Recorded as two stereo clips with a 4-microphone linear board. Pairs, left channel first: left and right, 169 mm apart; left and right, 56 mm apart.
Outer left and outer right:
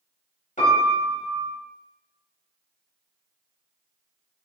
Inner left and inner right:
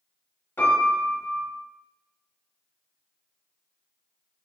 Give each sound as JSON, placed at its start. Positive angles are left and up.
{"t": 0.6, "sound": "a piano", "side_deg": 50, "distance_m": 1.6}